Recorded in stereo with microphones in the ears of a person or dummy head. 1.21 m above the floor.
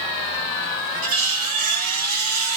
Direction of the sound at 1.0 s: 45° right (ahead or behind).